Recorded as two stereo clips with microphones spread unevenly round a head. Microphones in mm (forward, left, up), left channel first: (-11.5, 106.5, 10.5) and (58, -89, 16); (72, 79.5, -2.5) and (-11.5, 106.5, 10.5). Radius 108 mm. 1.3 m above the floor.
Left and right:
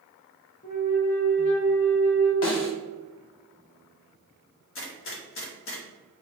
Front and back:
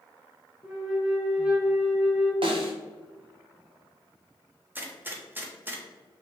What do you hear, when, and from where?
0.6 s a flute: 100° left, 0.9 m
2.4 s a snare drum: 145° left, 0.8 m
4.8 s a gunshot: 90° left, 1.0 m